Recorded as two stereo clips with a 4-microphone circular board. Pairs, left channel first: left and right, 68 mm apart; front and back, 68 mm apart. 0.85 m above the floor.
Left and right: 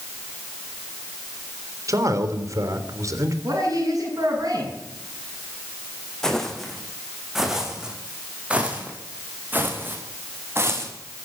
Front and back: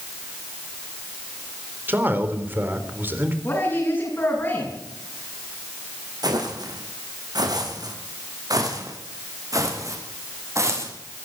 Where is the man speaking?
120° right, 3.5 m.